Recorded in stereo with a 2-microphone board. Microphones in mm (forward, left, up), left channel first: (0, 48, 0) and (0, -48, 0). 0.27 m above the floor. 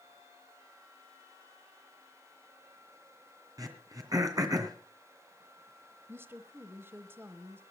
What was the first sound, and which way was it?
Throat clearing, 40° right (ahead or behind).